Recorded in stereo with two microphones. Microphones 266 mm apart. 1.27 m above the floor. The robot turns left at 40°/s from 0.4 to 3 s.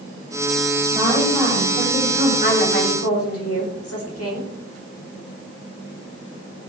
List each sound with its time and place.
0.9 s a woman speaking: 170° right, 8.5 m; by 2.3 s 135° left, 8.5 m
2.4 s a woman speaking: 40° left (ahead or behind), 4.5 m; by 4.5 s 60° left (ahead or behind), 4.5 m